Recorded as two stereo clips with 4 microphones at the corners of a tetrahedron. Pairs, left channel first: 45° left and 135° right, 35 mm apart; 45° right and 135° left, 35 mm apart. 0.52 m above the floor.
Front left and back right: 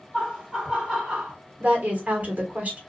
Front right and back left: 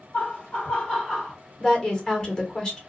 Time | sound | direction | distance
0.1 | laughter | 60° right | 1.8 m
1.6 | a woman speaking | 105° right | 1.1 m